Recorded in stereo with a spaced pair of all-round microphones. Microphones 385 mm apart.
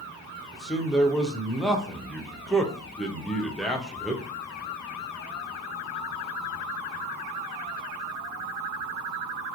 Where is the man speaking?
Centre (ahead or behind), 0.6 m.